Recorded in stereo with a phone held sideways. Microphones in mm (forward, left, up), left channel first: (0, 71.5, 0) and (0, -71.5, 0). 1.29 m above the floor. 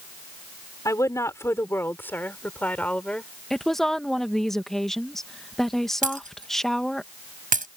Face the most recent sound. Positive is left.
turn(degrees=-75)  # may be behind; listen again after turning